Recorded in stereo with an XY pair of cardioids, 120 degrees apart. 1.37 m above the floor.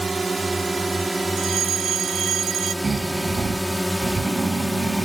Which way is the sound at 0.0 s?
15° right.